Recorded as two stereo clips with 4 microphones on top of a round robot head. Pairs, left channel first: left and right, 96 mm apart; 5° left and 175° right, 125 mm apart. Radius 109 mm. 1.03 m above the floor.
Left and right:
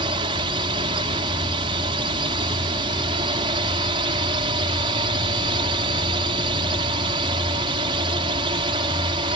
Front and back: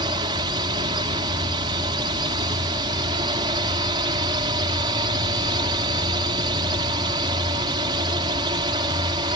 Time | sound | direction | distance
0.0 | a drone | 120° right | ?